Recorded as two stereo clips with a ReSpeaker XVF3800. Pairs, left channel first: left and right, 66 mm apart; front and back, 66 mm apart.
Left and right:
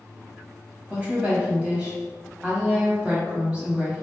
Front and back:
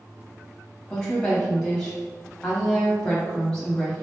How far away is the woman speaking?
About 1.4 m.